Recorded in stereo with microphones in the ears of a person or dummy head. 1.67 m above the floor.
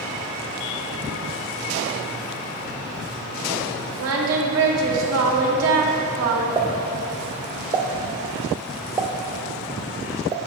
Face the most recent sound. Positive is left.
turn(degrees=-20)  # may be behind; listen again after turning